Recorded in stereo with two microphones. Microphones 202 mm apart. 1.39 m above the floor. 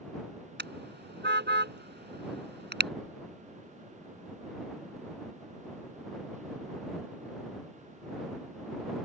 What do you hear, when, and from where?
0.6 s a car horn: 60° right (ahead or behind)